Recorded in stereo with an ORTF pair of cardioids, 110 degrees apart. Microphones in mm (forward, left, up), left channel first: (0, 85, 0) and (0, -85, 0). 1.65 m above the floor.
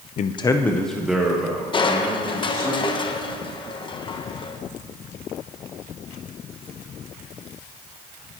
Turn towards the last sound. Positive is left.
turn(degrees=30)